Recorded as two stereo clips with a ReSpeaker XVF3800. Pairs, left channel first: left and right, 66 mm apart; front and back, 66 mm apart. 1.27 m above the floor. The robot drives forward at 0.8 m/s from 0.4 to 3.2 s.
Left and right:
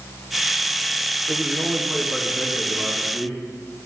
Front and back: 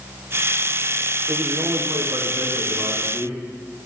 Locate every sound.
1.3 s a man speaking: 165° right, 0.5 m; by 3.4 s 175° right, 2.0 m